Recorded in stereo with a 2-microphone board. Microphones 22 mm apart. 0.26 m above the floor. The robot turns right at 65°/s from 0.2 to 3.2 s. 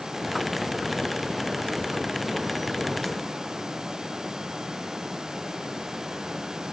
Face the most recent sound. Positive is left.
No sound to turn to.